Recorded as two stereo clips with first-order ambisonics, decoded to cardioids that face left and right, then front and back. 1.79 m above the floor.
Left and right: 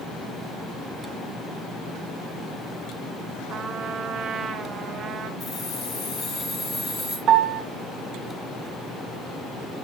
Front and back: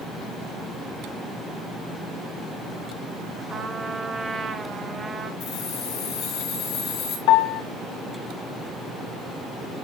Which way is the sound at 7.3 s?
30° right.